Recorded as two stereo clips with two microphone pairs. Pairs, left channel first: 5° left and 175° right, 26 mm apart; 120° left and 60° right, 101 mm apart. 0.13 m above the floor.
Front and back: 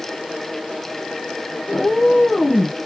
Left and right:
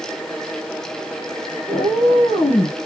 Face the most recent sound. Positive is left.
turn(degrees=85)